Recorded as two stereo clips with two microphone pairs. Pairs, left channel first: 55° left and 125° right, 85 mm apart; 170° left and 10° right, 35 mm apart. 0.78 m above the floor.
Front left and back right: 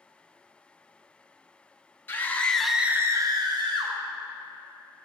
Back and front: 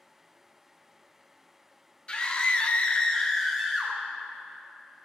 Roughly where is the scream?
Behind left.